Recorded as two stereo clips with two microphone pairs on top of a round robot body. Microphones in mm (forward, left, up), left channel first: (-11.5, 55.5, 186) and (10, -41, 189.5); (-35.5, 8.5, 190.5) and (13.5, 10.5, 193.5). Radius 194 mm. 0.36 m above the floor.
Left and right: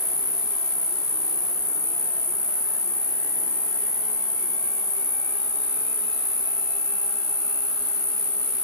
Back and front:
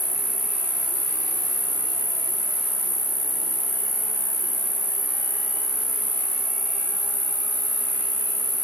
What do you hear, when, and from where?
0.0 s an insect: 50° left, 0.7 m